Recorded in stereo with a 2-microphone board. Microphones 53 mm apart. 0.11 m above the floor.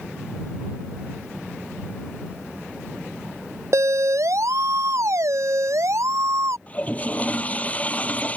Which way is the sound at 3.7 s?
70° right (ahead or behind).